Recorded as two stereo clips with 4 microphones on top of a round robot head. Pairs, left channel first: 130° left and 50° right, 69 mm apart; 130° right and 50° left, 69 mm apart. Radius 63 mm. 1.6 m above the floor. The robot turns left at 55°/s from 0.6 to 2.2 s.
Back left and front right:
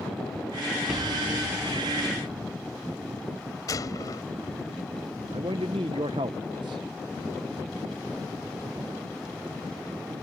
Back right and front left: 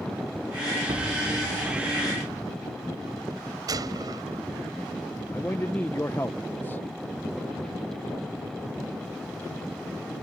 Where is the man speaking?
65° right.